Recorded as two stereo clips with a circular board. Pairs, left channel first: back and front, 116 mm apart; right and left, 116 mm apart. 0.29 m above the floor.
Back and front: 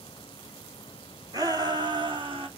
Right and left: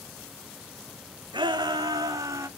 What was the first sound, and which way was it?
A shout, 50° left.